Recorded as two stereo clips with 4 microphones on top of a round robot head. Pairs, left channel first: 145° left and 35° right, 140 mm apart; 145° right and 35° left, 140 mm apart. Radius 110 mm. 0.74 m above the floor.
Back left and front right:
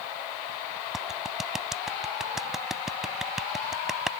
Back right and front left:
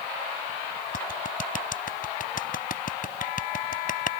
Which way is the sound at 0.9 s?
120° right.